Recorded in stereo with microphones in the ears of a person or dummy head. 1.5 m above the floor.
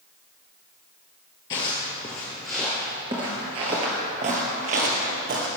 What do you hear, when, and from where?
1.5 s footsteps: 25° left (ahead or behind), 1.6 m; by 5.5 s 45° right (ahead or behind), 2 m